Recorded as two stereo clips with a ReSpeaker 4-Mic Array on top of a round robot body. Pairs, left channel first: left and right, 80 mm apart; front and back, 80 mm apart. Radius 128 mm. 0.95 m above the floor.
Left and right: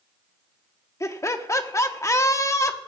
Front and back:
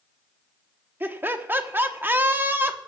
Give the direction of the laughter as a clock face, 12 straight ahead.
8 o'clock.